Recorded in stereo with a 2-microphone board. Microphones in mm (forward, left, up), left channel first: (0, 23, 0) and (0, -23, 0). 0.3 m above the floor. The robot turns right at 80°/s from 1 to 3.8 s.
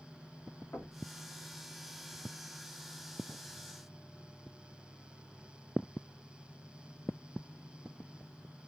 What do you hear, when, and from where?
0.7 s knocking: 60° left (ahead or behind), 2 m